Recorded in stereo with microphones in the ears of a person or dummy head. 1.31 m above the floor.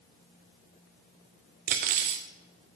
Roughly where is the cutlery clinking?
Right.